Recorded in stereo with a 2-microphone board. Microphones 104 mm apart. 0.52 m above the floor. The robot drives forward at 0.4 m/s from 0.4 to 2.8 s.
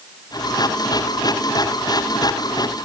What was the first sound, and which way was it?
Only background noise.